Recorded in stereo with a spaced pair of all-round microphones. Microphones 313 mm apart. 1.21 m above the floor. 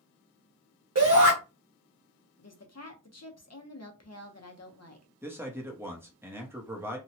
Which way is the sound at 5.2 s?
5° right (ahead or behind).